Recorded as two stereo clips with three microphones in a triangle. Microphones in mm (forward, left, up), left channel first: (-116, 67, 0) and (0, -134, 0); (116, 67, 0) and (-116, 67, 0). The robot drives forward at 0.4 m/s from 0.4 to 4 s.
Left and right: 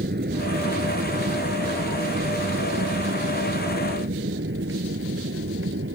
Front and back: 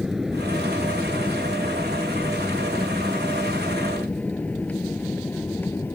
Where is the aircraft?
90° right; by 6.0 s 80° right.